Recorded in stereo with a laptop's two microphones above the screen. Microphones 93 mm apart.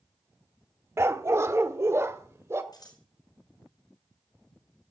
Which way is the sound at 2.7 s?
45° left (ahead or behind).